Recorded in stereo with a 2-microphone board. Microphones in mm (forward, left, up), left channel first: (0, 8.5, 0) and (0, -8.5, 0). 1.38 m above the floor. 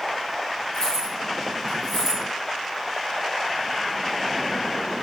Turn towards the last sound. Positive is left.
turn(degrees=10)  # may be behind; listen again after turning